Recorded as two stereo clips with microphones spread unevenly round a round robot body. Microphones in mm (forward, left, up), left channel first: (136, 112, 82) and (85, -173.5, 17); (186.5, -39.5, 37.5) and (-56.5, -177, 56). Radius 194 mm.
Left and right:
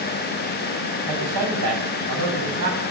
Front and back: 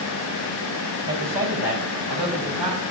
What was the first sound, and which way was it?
A man speaking, 115° right.